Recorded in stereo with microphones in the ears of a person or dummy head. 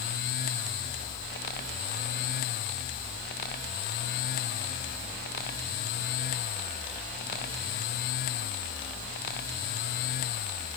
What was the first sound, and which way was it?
Only background noise.